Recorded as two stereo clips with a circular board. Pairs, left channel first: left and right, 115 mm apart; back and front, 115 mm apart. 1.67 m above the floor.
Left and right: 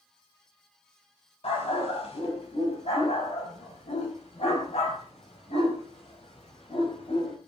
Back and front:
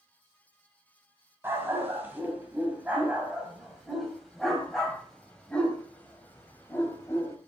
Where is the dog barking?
70° left, 6 m; by 7.4 s 115° left, 5 m.